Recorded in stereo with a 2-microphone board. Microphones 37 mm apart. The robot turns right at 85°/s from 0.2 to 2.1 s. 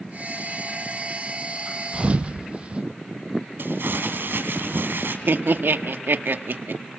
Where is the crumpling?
75° right (ahead or behind), 3.5 m.